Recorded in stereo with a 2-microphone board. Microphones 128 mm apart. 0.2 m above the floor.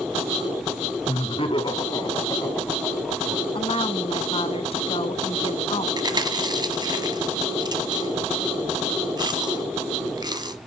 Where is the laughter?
50° left (ahead or behind), 2 m; by 3.4 s 5° right (ahead or behind), 2 m.